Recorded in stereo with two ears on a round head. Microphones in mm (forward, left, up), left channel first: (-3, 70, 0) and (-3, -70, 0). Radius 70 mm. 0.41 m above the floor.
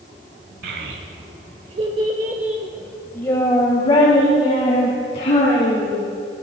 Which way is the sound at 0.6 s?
70° right (ahead or behind).